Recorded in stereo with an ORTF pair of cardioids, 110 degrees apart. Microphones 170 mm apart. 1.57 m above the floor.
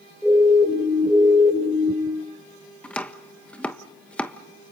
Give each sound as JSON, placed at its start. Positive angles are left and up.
{"t": 0.2, "sound": "a siren", "azimuth_deg": 5, "distance_m": 7.0}
{"t": 2.8, "sound": "chopping", "azimuth_deg": 10, "distance_m": 1.3}